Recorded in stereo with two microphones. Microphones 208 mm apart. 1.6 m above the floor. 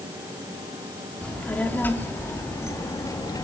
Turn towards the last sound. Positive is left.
turn(degrees=20)  # may be behind; listen again after turning